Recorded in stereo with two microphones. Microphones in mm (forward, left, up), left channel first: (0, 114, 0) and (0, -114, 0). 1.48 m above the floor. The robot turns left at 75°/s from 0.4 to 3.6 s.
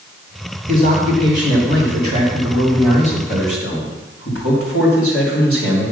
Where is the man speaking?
30° right, 3.5 m; by 5.9 s 110° left, 3.5 m.